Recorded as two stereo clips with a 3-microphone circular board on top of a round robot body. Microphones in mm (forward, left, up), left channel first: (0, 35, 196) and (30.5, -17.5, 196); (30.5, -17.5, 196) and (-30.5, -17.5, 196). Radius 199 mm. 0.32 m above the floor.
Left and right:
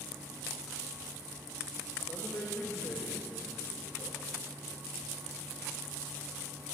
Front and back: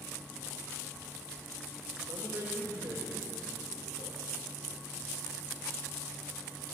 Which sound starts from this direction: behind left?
A man speaking, at 2.1 s.